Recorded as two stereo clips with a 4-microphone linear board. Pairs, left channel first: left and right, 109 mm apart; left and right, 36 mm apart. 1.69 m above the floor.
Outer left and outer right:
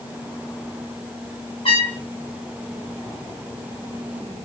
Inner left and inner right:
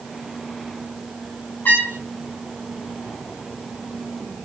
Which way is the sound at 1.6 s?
55° left (ahead or behind).